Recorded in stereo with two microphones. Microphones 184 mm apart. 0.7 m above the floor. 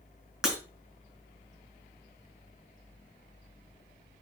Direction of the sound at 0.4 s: 5° right (ahead or behind).